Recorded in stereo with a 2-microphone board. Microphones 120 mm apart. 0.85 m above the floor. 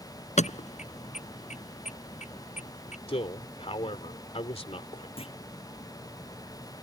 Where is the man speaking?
55° left (ahead or behind).